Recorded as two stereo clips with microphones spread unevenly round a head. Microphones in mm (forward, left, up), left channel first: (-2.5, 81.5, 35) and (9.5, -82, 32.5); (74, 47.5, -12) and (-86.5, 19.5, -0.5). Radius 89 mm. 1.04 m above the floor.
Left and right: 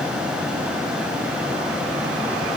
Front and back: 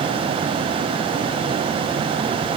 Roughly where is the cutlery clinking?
No cutlery clinking in this recording.